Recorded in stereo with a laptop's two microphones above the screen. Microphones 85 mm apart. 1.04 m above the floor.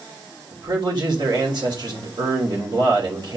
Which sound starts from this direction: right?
A man speaking, at 0.5 s.